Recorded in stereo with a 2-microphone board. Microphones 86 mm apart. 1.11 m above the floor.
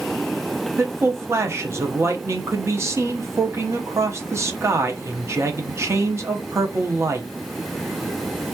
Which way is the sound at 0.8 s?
35° right (ahead or behind).